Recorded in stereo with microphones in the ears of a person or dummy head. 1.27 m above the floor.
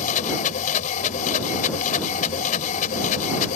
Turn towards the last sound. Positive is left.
turn(degrees=45)  # may be behind; listen again after turning